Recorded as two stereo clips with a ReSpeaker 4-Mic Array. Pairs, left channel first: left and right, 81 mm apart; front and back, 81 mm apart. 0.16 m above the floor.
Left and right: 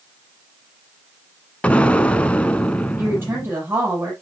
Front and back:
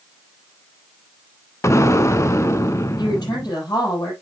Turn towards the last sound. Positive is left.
turn(degrees=-30)